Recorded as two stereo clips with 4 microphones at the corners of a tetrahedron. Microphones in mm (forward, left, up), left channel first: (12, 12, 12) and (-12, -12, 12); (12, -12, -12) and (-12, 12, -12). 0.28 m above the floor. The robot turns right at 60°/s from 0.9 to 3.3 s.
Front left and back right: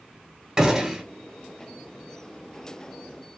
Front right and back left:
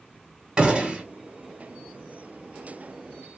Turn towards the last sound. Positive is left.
turn(degrees=-55)